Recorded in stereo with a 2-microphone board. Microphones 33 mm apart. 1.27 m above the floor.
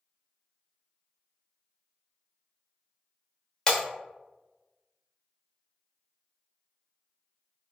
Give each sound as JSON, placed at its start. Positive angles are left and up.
{"t": 3.7, "sound": "breaking glass", "side_deg": 20, "distance_m": 1.0}